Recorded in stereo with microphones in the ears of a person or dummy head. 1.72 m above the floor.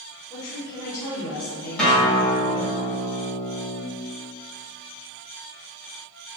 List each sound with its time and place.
0.3 s a woman speaking: 20° left (ahead or behind), 1.1 m
1.8 s a guitar: 5° left (ahead or behind), 0.8 m